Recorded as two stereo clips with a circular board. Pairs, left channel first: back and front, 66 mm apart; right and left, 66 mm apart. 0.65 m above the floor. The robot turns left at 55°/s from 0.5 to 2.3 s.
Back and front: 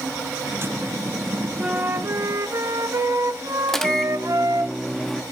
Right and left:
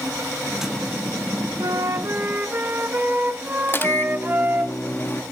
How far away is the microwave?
About 1.0 m.